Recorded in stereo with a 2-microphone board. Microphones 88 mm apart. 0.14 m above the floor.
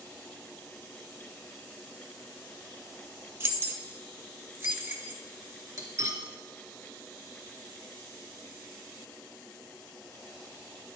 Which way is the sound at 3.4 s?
30° right (ahead or behind).